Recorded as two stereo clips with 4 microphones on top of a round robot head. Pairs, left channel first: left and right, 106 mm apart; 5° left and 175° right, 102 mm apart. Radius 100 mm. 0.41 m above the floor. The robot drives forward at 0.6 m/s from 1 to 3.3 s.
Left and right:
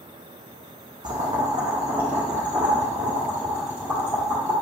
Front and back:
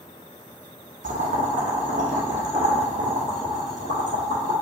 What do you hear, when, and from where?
1.0 s boiling: 150° right, 0.6 m; by 4.5 s 170° right, 1.9 m